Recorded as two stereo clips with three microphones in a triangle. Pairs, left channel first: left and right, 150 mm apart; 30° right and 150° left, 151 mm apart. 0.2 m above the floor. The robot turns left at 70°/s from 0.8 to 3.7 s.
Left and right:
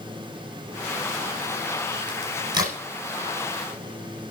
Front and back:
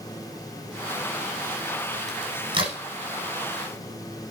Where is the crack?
120° right, 8.5 m; by 2.8 s 170° right, 8.5 m.